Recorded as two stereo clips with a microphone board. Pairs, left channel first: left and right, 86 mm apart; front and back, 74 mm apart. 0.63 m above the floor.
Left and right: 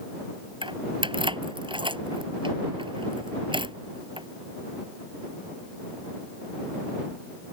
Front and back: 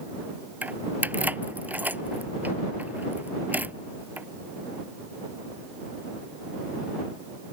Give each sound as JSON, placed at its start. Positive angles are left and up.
{"t": 0.6, "sound": "keys jangling", "azimuth_deg": -110}